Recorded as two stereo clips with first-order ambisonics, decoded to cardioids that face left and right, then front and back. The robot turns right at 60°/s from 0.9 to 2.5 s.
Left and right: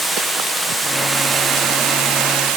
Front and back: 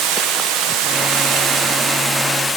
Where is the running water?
Straight behind, 0.9 m; by 2.6 s 85° right, 0.9 m.